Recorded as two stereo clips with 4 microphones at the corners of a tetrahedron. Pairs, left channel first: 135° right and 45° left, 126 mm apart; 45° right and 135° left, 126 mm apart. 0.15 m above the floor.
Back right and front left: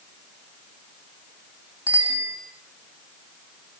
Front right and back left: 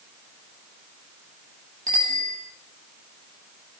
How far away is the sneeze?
I don't hear a sneeze.